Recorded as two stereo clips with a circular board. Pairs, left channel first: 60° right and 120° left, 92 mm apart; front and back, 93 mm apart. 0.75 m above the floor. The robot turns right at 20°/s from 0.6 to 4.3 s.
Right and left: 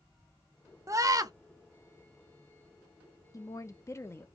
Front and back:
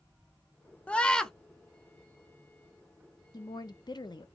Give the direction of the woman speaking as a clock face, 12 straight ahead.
1 o'clock.